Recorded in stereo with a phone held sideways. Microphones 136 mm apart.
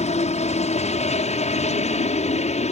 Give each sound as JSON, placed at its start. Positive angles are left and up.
{"t": 0.0, "sound": "a helicopter", "side_deg": 55}